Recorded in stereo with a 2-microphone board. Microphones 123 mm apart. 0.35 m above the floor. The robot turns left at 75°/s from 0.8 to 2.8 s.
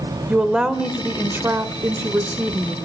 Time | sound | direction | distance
0.3 | a woman speaking | 5° right (ahead or behind) | 1.2 m